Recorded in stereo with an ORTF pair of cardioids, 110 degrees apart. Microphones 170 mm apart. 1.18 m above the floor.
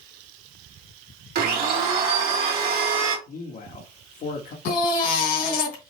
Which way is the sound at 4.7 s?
65° left.